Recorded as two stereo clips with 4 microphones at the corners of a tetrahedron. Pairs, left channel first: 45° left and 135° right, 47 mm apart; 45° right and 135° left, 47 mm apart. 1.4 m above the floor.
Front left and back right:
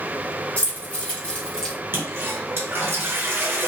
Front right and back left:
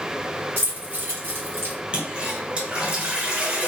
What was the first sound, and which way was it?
Keys jangling, 95° left.